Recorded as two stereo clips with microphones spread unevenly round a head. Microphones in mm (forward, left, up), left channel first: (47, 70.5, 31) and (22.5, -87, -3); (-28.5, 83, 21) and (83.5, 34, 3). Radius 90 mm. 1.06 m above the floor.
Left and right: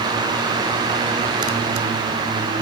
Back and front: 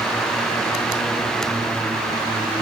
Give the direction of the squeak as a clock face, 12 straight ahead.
No squeak in this recording.